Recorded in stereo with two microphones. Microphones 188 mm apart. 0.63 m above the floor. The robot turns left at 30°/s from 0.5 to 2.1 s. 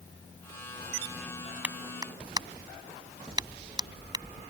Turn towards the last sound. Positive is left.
turn(degrees=-20)  # may be behind; listen again after turning